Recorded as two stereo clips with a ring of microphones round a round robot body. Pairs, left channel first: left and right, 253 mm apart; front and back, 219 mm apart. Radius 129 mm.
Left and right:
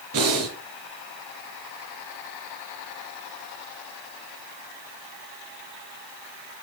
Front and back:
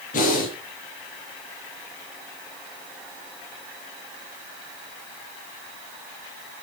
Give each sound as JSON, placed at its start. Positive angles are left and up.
{"t": 0.1, "sound": "breathing", "azimuth_deg": -60, "distance_m": 4.5}